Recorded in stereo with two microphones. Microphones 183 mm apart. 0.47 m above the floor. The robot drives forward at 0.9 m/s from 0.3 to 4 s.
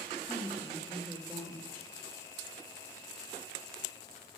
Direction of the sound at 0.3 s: 10° right (ahead or behind).